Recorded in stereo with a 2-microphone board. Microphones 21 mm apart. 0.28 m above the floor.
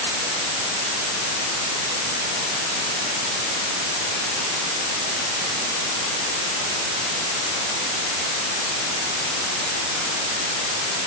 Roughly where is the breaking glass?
No breaking glass in this recording.